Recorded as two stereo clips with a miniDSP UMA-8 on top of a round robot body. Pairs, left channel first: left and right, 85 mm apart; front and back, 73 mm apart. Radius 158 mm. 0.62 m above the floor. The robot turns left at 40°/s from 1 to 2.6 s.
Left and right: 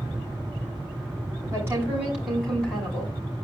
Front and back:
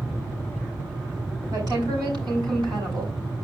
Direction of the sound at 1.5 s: 150° right.